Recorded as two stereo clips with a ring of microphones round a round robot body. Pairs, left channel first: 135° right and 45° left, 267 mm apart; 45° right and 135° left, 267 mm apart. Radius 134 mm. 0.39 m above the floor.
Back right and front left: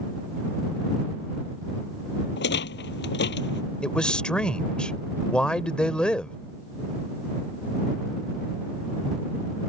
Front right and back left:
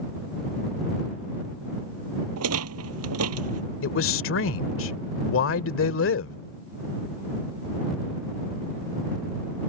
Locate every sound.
2.4 s a rattle: 170° left
3.8 s a man speaking: 50° right